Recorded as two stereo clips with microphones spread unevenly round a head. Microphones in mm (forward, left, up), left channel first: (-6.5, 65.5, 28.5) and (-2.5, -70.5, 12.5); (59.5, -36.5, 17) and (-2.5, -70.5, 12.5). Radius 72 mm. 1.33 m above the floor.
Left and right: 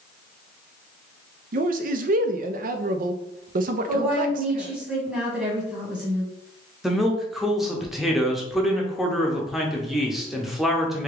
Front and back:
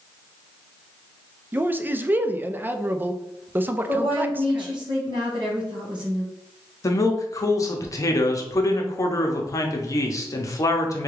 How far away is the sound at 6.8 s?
About 0.8 m.